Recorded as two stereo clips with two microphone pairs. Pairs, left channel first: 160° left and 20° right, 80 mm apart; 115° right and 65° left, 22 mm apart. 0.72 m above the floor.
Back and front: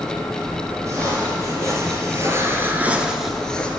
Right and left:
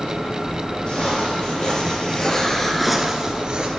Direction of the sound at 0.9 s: 65° right.